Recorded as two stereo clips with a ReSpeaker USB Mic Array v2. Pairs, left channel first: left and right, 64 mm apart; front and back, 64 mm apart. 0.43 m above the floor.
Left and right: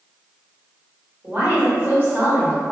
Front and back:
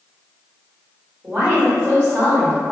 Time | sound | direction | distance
1.2 | a woman speaking | 135° right | 1.4 m